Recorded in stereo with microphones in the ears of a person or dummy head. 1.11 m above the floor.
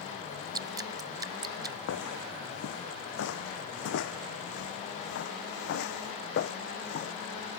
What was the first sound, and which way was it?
Dripping, 15° right (ahead or behind).